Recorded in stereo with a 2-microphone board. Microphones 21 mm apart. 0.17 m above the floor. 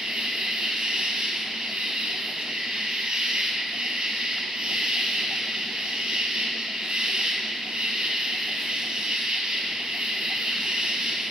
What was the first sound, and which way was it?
An insect, 75° right (ahead or behind).